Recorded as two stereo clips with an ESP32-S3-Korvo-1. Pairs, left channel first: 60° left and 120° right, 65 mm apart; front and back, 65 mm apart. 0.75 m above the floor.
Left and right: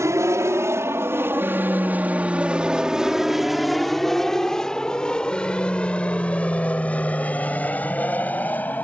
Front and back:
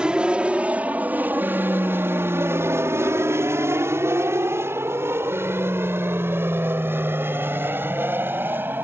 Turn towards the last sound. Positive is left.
turn(degrees=125)